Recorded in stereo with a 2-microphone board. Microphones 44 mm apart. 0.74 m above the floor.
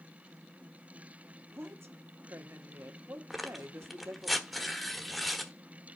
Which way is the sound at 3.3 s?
Centre (ahead or behind).